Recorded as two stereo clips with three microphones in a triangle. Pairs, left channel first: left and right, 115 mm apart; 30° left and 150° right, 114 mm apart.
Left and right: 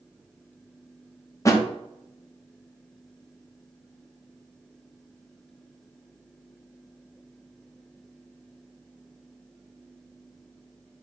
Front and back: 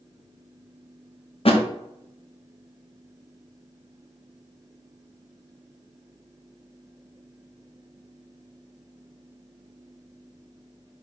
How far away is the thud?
About 0.7 m.